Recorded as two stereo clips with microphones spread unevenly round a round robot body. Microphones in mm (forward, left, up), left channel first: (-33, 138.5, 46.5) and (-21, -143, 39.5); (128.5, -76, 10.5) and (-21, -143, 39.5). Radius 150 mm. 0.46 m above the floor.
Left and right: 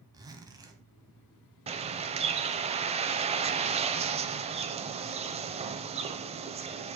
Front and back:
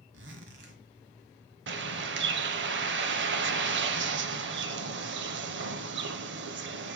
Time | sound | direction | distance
0.1 | a zipper | 165° right | 1.5 m
1.7 | a bird | 160° right | 0.7 m